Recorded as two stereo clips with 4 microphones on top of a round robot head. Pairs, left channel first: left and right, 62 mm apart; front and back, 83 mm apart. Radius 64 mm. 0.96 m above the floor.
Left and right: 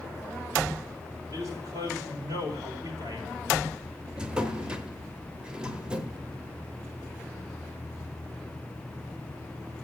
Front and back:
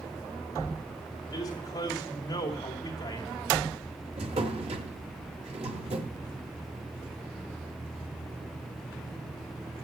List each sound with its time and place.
1.3 s a man speaking: 50° right, 2.5 m
4.2 s a drawer: 165° right, 0.9 m